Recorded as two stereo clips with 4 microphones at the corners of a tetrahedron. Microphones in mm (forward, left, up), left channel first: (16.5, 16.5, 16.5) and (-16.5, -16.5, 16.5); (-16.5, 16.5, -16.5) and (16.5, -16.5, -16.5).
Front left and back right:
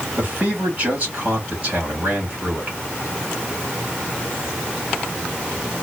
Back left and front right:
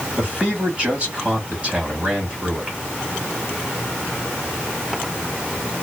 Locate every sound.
0.2 s a man speaking: 95° right, 1.5 m